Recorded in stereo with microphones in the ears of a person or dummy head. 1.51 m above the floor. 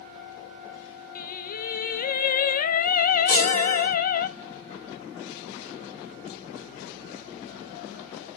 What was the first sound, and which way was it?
Singing, 50° left (ahead or behind).